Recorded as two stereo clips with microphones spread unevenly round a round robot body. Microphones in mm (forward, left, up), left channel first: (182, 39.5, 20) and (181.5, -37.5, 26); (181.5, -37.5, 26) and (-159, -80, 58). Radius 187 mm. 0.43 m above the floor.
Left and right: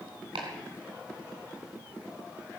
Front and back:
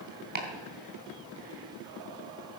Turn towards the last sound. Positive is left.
turn(degrees=-110)